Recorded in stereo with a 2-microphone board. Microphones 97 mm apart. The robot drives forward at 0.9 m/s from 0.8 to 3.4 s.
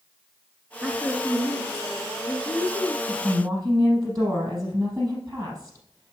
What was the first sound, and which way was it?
A woman speaking, 10° right (ahead or behind).